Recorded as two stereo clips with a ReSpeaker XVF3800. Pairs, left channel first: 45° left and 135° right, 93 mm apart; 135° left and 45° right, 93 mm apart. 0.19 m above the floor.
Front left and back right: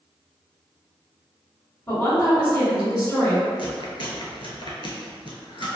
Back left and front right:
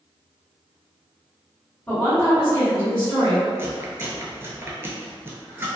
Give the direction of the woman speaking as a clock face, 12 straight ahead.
10 o'clock.